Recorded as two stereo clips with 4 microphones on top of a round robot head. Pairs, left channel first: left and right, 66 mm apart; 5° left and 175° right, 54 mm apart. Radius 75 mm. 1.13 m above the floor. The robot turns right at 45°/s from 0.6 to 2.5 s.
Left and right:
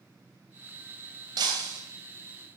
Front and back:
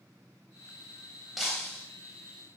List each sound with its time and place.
1.4 s breaking glass: 90° right, 3.5 m; by 1.8 s 70° right, 3.5 m